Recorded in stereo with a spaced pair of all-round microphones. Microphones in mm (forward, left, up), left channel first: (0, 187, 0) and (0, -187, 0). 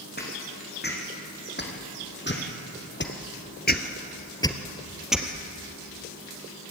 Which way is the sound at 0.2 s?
25° left (ahead or behind).